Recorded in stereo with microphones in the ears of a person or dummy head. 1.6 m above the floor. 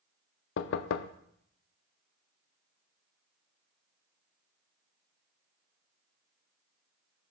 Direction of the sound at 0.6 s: 65° left (ahead or behind).